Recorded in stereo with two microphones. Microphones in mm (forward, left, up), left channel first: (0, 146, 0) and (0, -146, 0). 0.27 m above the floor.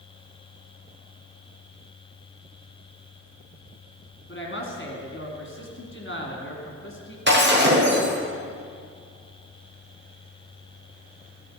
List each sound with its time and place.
4.3 s a woman speaking: 45° left (ahead or behind), 2.5 m
7.3 s breaking glass: 35° right (ahead or behind), 5.5 m